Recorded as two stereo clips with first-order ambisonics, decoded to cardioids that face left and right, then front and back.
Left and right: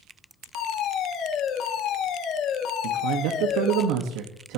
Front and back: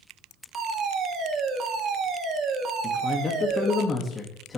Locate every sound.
0.5 s a fire alarm: 130° left, 2 m
2.8 s a man speaking: 70° right, 1.6 m